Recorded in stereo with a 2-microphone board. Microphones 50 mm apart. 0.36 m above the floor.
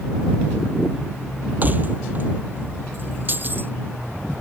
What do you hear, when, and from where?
1.6 s keys jangling: 35° right (ahead or behind); by 3.7 s 40° right (ahead or behind)